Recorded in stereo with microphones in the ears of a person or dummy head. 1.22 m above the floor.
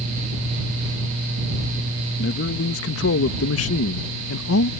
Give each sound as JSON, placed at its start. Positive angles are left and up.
{"t": 2.2, "sound": "a man speaking", "side_deg": 55}